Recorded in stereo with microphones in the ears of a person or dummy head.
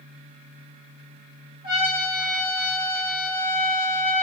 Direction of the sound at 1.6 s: 40° right (ahead or behind).